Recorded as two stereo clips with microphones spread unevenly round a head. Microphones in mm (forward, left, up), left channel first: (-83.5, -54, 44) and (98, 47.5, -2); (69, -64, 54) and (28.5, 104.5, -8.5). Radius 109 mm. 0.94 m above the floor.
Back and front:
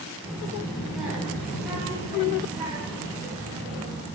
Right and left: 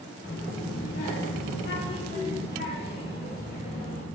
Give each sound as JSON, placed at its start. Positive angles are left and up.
{"t": 0.2, "sound": "a child speaking", "azimuth_deg": -60, "distance_m": 2.5}